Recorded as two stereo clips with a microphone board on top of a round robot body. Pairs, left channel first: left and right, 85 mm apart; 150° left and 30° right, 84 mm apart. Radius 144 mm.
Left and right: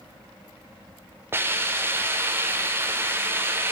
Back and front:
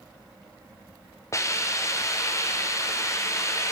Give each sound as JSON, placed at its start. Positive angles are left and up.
{"t": 1.3, "sound": "a hiss", "azimuth_deg": -155, "distance_m": 0.8}